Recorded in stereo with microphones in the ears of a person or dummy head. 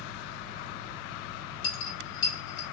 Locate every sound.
0.0 s a fan: 30° right (ahead or behind), 1.9 m
1.6 s a dropped coin: 25° left (ahead or behind), 0.9 m